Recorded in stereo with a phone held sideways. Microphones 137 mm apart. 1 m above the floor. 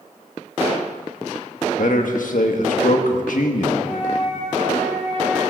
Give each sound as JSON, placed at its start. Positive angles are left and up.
{"t": 1.8, "sound": "a man speaking", "side_deg": 75, "distance_m": 1.4}
{"t": 3.8, "sound": "a flute", "side_deg": 65, "distance_m": 5.5}